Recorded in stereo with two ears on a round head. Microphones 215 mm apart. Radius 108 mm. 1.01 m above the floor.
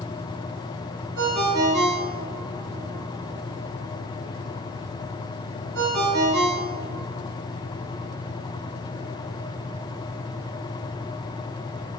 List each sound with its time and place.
1.2 s a ringtone: 65° right (ahead or behind), 1.3 m